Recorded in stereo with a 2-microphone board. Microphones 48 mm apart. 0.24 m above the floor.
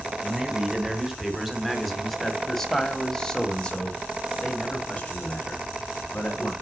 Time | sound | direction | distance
0.2 | a man speaking | 10° right (ahead or behind) | 2 m